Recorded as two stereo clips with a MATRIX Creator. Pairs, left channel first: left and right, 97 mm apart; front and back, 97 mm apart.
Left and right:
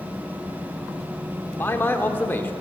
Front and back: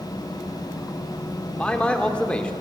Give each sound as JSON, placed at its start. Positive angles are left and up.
{"t": 1.5, "sound": "a man speaking", "azimuth_deg": 60, "distance_m": 0.9}